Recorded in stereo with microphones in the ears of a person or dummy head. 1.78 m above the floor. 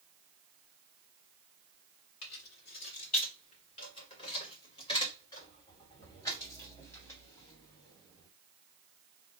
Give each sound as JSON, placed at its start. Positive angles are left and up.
{"t": 2.2, "sound": "keys jangling", "side_deg": 55, "distance_m": 1.4}